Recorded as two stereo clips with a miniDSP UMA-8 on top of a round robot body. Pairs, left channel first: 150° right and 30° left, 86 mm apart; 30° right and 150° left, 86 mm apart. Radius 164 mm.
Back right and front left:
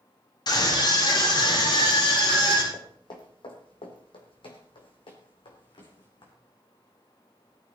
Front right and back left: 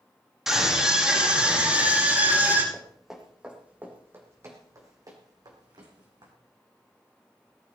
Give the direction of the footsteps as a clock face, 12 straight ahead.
4 o'clock.